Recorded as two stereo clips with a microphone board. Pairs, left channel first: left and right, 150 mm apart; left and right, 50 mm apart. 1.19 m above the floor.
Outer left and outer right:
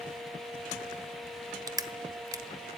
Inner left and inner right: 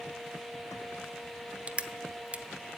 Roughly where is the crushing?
Right.